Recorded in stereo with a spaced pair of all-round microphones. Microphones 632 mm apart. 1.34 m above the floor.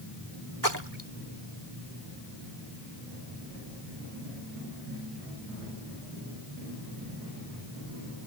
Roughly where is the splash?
Right.